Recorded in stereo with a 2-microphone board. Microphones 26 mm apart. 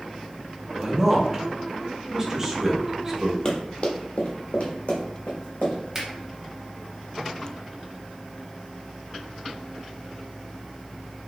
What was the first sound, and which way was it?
A man speaking, 20° right (ahead or behind).